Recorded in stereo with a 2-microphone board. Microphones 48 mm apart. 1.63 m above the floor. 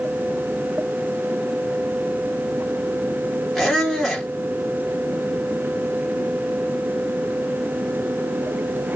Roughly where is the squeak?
Centre.